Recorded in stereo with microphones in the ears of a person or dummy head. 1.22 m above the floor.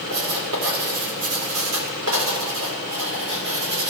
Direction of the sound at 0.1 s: 80° right.